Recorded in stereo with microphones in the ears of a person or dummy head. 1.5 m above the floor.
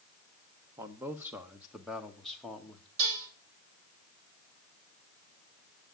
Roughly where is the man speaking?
Centre.